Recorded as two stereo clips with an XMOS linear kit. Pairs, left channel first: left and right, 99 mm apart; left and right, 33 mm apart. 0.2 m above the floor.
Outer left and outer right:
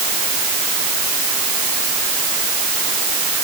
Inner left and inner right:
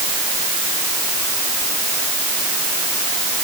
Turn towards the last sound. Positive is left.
No sound to turn to.